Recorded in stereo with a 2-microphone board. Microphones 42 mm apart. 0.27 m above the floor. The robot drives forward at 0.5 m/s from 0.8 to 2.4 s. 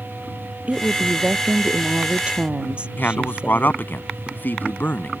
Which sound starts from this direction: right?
A woman speaking, at 0.7 s.